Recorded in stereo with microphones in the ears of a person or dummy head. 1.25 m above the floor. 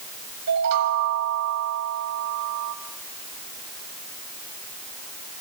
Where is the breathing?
No breathing in this recording.